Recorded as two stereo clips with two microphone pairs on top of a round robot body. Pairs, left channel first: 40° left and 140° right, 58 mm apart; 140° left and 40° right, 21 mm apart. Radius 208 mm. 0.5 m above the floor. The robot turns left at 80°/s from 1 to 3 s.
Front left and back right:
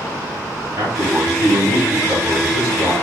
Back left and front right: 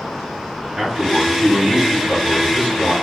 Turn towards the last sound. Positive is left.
turn(degrees=110)